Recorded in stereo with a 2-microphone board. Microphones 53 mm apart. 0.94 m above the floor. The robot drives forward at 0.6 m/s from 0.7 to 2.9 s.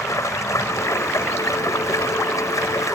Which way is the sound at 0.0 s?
75° left (ahead or behind).